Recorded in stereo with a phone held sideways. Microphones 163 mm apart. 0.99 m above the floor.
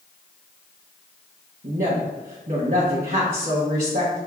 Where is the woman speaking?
60° right (ahead or behind), 1.0 m.